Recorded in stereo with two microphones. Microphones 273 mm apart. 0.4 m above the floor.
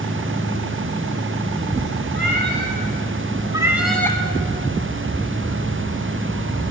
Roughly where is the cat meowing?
Right.